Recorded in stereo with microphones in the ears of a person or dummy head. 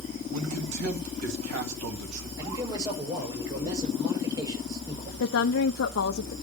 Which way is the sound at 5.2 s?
65° left (ahead or behind).